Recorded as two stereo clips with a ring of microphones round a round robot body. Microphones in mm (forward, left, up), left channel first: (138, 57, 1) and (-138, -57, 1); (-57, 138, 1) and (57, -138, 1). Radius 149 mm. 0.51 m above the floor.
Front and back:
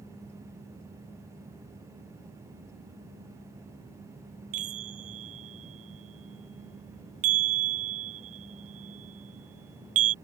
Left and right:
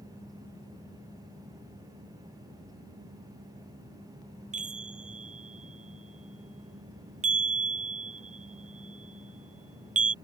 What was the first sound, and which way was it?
A chime, 135° right.